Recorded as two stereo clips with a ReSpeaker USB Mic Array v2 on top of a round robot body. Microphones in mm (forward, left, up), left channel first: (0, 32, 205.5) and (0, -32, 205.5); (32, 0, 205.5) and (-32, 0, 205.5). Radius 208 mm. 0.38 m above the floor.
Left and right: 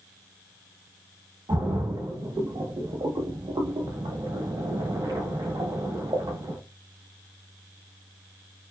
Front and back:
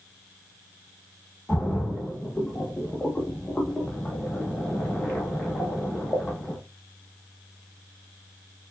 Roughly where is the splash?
Right.